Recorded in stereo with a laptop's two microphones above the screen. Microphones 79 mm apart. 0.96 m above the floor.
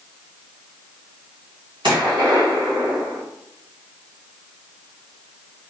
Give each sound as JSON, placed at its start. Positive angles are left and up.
{"t": 1.8, "sound": "a gunshot", "side_deg": -60, "distance_m": 1.6}